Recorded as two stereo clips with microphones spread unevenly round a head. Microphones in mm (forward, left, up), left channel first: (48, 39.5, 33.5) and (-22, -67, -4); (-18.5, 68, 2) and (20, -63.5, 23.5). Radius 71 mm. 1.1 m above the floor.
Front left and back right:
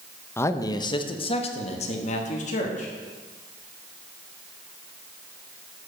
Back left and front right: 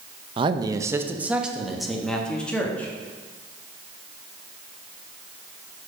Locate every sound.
0.4 s a man speaking: 20° right, 0.7 m; by 2.9 s 25° left, 1.8 m